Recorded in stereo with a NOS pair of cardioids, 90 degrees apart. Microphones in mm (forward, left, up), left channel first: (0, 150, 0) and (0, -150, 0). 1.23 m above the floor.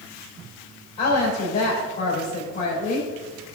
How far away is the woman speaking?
About 4 m.